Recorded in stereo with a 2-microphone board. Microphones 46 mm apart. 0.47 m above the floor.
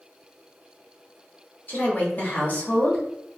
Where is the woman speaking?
40° left (ahead or behind), 0.9 m.